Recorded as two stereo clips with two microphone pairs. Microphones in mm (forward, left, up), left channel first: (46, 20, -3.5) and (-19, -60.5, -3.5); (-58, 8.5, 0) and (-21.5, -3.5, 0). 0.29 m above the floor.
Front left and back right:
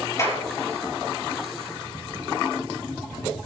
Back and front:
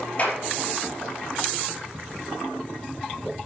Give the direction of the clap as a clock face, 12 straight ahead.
8 o'clock.